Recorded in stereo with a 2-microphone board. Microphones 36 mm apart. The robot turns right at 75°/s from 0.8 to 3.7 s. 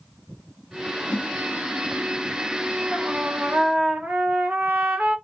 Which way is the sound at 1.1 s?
55° left (ahead or behind).